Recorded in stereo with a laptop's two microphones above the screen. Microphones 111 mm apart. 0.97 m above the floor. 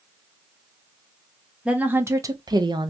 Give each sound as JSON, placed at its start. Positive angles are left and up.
{"t": 1.6, "sound": "a woman speaking", "side_deg": -10, "distance_m": 0.7}